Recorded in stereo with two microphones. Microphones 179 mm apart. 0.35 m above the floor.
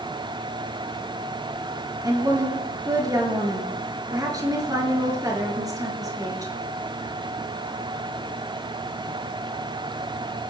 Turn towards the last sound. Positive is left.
turn(degrees=-20)  # may be behind; listen again after turning